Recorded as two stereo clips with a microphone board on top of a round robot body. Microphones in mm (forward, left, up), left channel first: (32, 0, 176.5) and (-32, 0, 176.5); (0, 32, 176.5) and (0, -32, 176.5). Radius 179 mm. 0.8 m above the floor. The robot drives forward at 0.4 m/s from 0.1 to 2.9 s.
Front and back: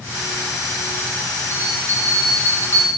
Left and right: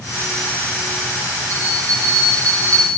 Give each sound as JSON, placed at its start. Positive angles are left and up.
{"t": 1.5, "sound": "a bell", "azimuth_deg": -50, "distance_m": 6.5}